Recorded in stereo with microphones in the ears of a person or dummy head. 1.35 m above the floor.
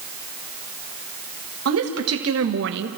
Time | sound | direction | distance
1.6 | a woman speaking | 70° right (ahead or behind) | 2.0 m